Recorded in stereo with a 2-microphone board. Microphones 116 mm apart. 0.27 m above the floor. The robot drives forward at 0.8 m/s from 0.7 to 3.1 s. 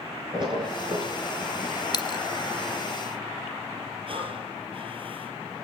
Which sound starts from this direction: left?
A dropped coin, at 1.9 s.